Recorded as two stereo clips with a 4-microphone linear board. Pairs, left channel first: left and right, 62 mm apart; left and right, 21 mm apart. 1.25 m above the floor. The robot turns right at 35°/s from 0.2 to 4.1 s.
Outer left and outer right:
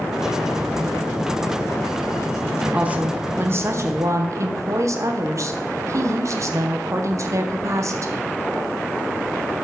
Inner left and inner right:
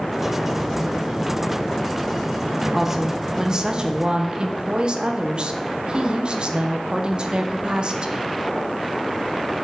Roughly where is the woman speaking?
Behind.